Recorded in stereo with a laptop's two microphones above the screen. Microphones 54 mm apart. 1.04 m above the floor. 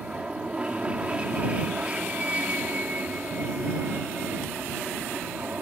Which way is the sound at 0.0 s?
20° right (ahead or behind).